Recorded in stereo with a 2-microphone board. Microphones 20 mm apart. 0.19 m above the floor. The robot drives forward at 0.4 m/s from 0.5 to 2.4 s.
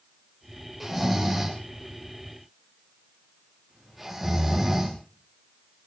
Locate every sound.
0.8 s snoring: 10° right (ahead or behind), 8.5 m; by 5.0 s 5° right (ahead or behind), 9 m